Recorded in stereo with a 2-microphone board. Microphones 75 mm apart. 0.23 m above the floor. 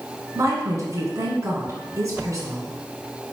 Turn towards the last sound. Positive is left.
turn(degrees=-45)  # may be behind; listen again after turning